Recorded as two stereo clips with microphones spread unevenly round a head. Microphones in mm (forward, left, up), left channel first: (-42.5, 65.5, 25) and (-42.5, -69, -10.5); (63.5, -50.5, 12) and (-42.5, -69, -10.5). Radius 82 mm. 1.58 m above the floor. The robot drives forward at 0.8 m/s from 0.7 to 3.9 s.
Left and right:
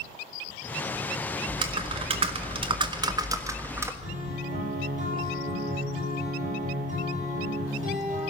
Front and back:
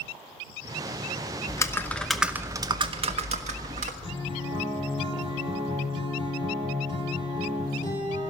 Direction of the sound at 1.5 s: 20° right.